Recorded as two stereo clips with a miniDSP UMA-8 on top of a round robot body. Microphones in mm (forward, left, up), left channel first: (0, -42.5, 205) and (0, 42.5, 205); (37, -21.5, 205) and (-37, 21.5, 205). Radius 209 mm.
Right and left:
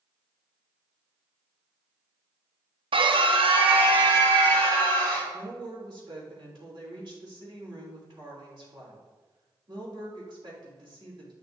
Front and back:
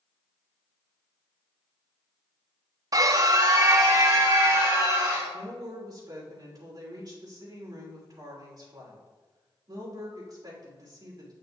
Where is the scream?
105° left, 0.6 m; by 5.3 s 100° left, 2.5 m.